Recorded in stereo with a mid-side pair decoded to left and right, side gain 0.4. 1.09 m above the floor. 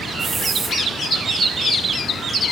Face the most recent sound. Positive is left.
turn(degrees=-40)